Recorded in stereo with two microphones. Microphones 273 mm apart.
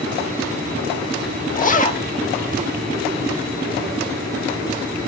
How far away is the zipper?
About 0.6 m.